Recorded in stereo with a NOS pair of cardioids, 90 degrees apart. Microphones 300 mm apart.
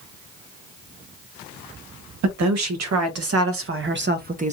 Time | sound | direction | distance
2.2 | a woman speaking | 70° right | 1.7 m